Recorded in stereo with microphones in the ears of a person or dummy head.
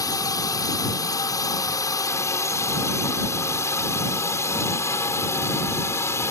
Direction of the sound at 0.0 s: 20° left (ahead or behind).